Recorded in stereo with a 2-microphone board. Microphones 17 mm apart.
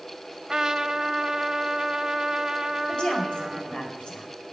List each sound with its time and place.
0.5 s a trumpet: 35° right (ahead or behind), 0.9 m
2.9 s a woman speaking: 55° left (ahead or behind), 4.5 m